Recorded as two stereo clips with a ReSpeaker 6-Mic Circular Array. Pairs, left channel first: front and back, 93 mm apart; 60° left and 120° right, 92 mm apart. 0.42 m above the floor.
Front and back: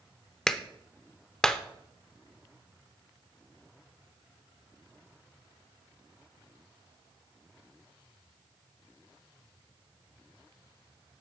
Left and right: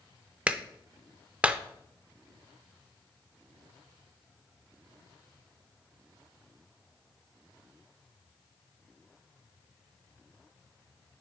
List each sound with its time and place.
0.5 s a clap: 70° right, 0.5 m